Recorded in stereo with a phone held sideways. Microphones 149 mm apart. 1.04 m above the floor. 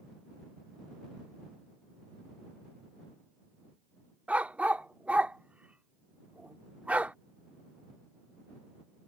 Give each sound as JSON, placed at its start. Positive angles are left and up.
{"t": 4.3, "sound": "a dog barking", "side_deg": -10}